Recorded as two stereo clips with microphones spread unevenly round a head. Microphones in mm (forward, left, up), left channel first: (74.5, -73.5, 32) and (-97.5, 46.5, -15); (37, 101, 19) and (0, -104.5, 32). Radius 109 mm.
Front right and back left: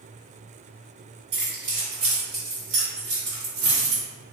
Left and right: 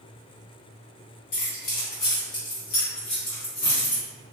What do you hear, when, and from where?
1.3 s keys jangling: 90° left, 2.0 m; by 4.0 s 135° left, 1.5 m